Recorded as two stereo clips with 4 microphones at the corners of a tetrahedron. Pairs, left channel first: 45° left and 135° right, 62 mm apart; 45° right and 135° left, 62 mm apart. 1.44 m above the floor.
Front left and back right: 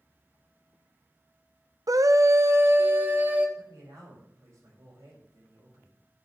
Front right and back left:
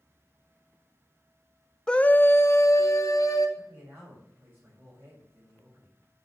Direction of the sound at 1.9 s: 125° right.